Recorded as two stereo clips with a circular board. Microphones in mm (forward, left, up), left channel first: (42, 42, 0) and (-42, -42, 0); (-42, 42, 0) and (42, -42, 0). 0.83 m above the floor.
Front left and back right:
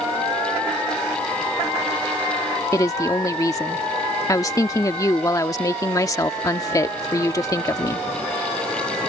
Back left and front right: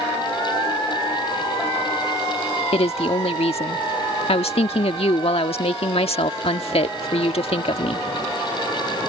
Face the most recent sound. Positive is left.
turn(degrees=105)